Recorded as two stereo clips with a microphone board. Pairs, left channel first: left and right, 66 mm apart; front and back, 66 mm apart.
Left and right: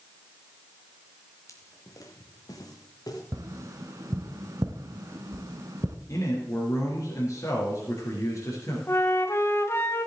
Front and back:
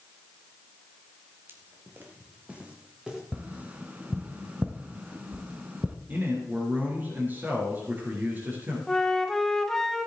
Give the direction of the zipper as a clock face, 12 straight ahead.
No zipper in this recording.